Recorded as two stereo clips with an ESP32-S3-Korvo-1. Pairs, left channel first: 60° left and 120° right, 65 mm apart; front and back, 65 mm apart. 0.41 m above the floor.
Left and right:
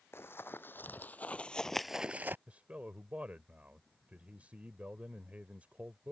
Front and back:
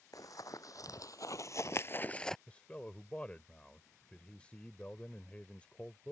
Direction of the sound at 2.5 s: 60° right.